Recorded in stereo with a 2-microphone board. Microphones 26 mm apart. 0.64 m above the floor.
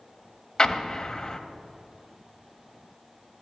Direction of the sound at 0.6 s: 30° left (ahead or behind).